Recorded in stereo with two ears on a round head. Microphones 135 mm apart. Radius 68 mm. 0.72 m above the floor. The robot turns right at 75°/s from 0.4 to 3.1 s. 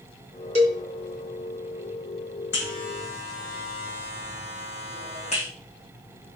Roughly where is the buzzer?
Left.